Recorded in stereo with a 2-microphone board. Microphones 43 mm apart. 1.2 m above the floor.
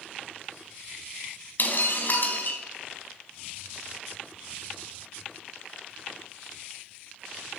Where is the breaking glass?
50° left (ahead or behind), 3.5 m.